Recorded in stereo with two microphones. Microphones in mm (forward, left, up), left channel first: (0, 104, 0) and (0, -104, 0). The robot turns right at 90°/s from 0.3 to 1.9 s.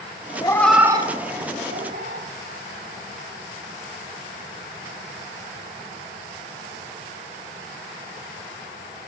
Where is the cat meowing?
25° left (ahead or behind), 1.1 m; by 2.3 s 60° right (ahead or behind), 1.1 m.